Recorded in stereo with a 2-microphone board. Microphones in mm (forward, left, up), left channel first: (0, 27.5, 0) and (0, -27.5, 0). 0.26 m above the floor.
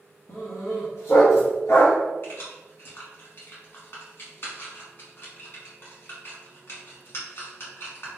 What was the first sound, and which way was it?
A dog barking, 70° left (ahead or behind).